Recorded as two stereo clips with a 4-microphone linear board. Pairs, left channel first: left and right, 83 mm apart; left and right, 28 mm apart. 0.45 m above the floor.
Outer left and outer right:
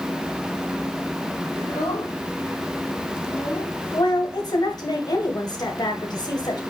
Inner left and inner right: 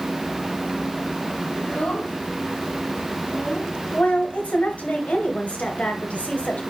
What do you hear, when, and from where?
1.6 s a child speaking: 45° left (ahead or behind), 2.5 m
3.9 s a woman speaking: 55° left (ahead or behind), 2 m